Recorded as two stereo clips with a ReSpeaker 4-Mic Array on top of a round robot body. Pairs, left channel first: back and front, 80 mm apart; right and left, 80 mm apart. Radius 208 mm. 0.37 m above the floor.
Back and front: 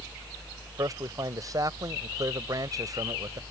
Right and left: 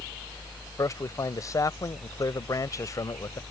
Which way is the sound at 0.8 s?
45° right.